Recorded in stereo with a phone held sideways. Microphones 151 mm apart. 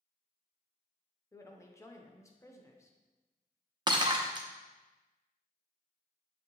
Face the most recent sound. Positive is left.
turn(degrees=-30)  # may be behind; listen again after turning